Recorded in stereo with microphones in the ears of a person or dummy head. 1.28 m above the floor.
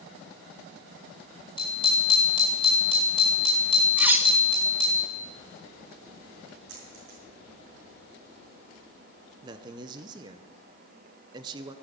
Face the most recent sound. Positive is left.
turn(degrees=-25)  # may be behind; listen again after turning